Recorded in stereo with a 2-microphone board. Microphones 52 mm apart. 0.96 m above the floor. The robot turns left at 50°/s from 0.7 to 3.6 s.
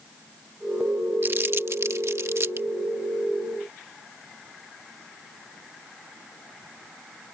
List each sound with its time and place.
1.2 s crumpling: 45° right (ahead or behind); by 2.7 s 55° right (ahead or behind)